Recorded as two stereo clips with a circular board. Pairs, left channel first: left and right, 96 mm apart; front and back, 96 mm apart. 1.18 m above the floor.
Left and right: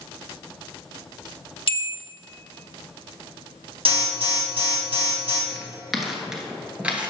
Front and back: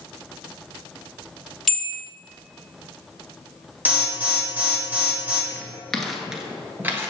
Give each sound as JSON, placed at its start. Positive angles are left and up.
{"t": 1.7, "sound": "a bell", "azimuth_deg": 90, "distance_m": 0.9}
{"t": 3.9, "sound": "an alarm", "azimuth_deg": -110, "distance_m": 1.9}
{"t": 5.5, "sound": "footsteps", "azimuth_deg": 20, "distance_m": 1.2}